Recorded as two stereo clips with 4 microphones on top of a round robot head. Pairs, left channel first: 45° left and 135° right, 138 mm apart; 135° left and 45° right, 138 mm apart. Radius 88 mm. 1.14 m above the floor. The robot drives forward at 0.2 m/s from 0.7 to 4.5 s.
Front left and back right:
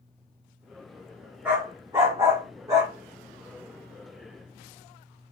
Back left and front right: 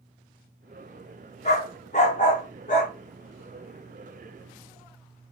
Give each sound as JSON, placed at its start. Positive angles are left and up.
{"t": 1.4, "sound": "a dog barking", "azimuth_deg": 150, "distance_m": 0.8}